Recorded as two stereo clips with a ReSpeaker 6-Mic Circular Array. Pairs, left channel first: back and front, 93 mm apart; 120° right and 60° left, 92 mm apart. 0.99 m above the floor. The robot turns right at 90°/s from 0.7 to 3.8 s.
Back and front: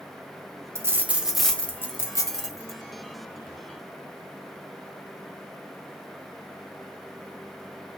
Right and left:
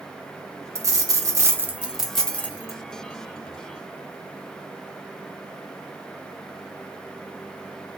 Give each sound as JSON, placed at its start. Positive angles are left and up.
{"t": 0.8, "sound": "a dropped coin", "azimuth_deg": 30, "distance_m": 0.6}